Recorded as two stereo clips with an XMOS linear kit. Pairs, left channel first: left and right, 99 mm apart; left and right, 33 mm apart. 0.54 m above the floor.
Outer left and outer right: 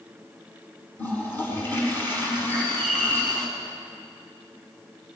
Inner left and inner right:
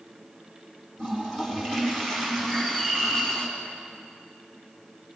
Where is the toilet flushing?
20° left (ahead or behind), 5 m.